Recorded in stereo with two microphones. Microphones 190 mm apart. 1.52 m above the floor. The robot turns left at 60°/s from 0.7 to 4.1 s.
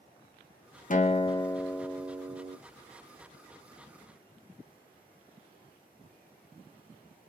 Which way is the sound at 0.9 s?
50° left.